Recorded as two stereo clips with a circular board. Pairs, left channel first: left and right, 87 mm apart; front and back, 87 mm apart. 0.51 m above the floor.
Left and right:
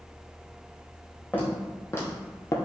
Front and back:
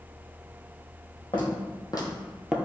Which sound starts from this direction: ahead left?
Footsteps, at 1.3 s.